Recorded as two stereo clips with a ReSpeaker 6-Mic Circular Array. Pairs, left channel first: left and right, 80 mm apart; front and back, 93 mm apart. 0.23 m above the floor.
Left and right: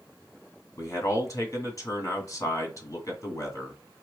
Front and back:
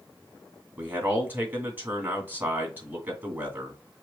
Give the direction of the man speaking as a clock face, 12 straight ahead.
8 o'clock.